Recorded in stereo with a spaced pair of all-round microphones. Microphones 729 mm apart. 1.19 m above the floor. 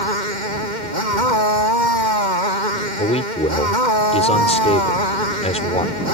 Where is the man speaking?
10° left (ahead or behind).